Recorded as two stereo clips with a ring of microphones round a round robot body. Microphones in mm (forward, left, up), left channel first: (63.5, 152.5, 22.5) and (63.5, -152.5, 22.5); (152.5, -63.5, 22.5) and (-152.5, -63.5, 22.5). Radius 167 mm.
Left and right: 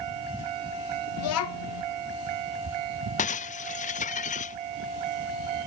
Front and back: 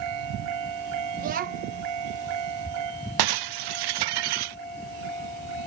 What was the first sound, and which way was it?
A child speaking, 120° left.